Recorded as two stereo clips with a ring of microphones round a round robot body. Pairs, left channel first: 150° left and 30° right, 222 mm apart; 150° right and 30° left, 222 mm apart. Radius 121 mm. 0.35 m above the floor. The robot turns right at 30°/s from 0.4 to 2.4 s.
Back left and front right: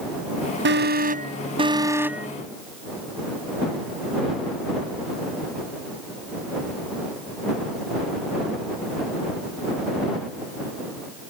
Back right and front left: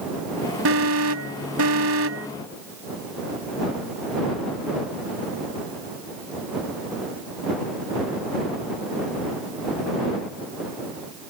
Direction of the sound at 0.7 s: 10° left.